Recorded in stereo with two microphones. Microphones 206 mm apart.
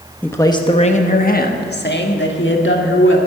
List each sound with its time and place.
0.2 s a man speaking: 10° left (ahead or behind), 0.9 m; by 3.2 s 70° left (ahead or behind), 2 m